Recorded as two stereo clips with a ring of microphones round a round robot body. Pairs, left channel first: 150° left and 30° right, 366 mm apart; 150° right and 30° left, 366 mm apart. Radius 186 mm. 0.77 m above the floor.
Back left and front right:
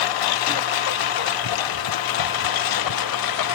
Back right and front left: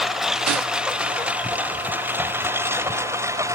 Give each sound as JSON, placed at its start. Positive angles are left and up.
{"t": 0.0, "sound": "a lawn mower", "azimuth_deg": 120}